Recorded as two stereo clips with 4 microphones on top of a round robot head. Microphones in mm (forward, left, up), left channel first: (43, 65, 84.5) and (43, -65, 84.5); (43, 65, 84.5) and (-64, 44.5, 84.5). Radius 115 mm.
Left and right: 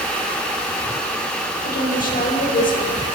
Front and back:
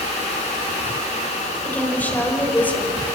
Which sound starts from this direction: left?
A woman speaking, at 1.6 s.